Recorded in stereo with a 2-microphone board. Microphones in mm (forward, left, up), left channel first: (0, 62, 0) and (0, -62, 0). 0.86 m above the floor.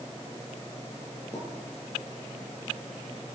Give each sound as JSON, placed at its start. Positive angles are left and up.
{"t": 1.3, "sound": "a pop", "side_deg": 25, "distance_m": 5.5}